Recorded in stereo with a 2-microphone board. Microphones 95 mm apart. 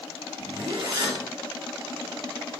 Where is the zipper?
65° right (ahead or behind), 2.5 m.